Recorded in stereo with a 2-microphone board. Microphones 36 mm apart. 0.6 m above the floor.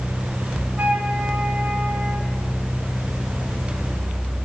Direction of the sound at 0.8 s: 55° right (ahead or behind).